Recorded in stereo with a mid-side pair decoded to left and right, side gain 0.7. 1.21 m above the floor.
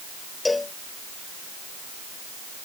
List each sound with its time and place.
0.5 s a cowbell: 15° left